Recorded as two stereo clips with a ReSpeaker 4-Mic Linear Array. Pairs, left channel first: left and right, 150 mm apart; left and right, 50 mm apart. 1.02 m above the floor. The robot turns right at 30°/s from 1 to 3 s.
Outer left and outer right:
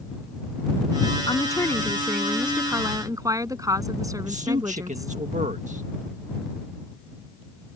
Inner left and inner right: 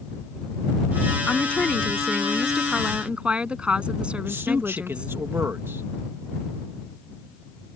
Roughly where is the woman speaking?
Behind left.